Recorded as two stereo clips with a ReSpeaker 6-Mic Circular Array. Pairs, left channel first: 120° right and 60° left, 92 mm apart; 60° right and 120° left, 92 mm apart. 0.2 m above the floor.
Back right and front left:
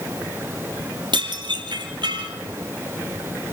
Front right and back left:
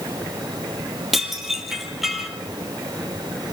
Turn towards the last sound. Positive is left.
turn(degrees=35)